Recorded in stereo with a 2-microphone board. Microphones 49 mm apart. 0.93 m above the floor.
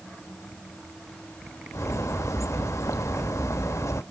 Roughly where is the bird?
Left.